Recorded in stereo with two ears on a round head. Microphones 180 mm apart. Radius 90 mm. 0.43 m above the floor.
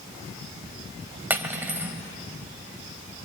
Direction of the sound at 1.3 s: 10° right (ahead or behind).